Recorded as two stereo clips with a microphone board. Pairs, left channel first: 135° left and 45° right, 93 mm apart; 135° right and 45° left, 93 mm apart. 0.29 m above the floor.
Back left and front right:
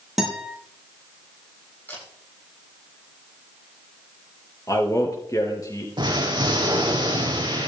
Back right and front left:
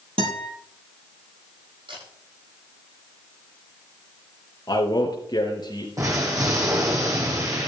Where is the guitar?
40° left, 6 m.